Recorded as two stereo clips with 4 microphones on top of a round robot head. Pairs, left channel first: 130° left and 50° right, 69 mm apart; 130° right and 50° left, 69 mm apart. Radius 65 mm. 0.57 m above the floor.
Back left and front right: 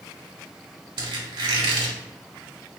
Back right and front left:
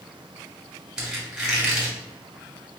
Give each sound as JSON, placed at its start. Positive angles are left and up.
{"t": 1.0, "sound": "a squeak", "azimuth_deg": -30, "distance_m": 1.5}